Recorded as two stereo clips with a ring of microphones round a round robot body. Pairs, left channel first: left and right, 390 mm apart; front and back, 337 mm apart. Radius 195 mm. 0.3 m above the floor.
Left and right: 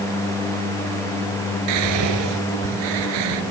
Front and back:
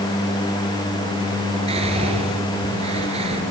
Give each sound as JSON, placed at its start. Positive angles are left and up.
{"t": 1.7, "sound": "whispering", "azimuth_deg": -105, "distance_m": 6.0}